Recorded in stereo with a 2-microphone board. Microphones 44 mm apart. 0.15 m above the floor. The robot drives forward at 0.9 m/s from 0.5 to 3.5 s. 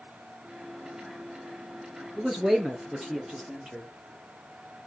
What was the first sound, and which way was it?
A man speaking, 5° right (ahead or behind).